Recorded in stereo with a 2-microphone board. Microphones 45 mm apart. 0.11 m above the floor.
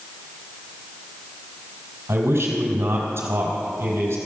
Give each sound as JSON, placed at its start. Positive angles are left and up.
{"t": 2.1, "sound": "a man speaking", "side_deg": -70, "distance_m": 3.0}